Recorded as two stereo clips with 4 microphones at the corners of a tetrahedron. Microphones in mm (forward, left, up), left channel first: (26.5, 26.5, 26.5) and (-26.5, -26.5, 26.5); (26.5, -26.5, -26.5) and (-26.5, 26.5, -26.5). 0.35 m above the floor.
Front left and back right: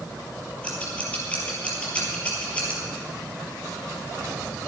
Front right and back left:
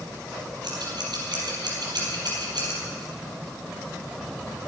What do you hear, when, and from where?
0.6 s scissors: 120° left, 5 m